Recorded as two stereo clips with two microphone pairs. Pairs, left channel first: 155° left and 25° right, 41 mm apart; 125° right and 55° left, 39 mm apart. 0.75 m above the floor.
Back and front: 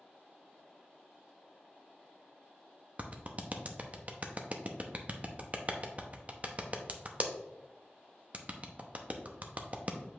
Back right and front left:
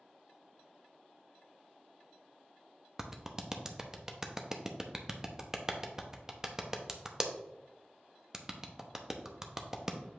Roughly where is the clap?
Ahead.